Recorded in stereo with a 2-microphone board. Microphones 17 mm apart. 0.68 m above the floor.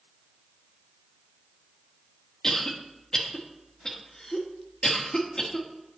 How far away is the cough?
About 1.2 m.